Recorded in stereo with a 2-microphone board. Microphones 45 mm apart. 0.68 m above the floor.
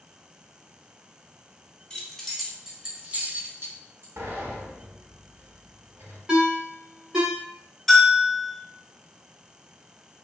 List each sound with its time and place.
1.9 s keys jangling: 20° left (ahead or behind), 0.9 m; by 4.1 s 60° right (ahead or behind), 0.9 m
4.2 s a sliding door: 75° right (ahead or behind), 1.0 m
6.3 s a ringtone: 20° right (ahead or behind), 0.9 m
7.9 s a bell: centre (ahead or behind), 0.6 m